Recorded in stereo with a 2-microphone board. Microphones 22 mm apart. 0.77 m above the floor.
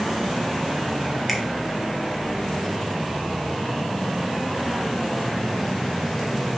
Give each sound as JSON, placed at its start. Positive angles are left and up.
{"t": 1.3, "sound": "a finger snap", "side_deg": 5, "distance_m": 0.8}